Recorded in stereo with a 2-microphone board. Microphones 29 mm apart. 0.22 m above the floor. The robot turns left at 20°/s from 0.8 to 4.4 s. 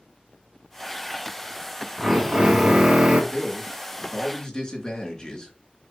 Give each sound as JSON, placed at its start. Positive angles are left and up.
{"t": 2.0, "sound": "a drill", "side_deg": -30, "distance_m": 1.5}
{"t": 3.3, "sound": "a man speaking", "side_deg": 45, "distance_m": 3.0}